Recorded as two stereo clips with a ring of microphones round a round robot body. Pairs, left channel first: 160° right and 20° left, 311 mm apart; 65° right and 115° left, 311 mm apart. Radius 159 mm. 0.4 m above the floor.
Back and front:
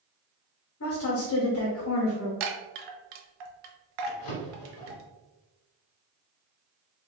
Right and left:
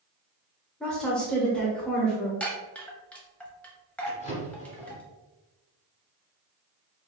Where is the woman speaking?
155° right, 1.1 m.